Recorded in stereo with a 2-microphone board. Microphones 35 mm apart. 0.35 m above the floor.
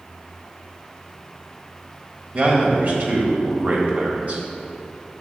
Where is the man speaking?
50° right (ahead or behind), 1.5 m.